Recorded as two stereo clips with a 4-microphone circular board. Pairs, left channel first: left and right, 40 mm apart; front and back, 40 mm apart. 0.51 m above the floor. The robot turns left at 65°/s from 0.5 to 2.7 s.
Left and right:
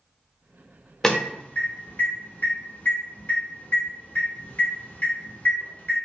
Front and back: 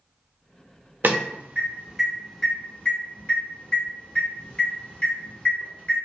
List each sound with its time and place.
1.0 s an alarm: 160° left, 0.7 m; by 6.0 s 55° left, 0.7 m